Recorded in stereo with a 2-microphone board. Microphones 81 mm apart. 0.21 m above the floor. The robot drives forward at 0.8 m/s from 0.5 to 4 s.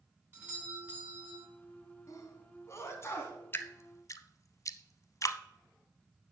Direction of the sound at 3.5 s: 25° left (ahead or behind).